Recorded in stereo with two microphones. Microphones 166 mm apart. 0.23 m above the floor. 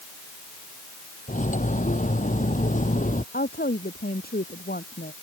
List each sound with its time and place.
1.3 s cutlery clinking: 55° left (ahead or behind)
3.3 s a woman speaking: 80° left